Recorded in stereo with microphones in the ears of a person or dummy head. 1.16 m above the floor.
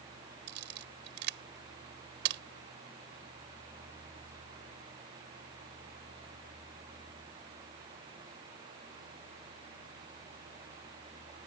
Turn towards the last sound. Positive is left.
turn(degrees=-65)  # may be behind; listen again after turning